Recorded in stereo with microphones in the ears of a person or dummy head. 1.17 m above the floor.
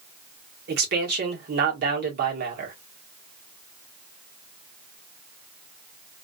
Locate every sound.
0.7 s a man speaking: 45° right (ahead or behind), 1.2 m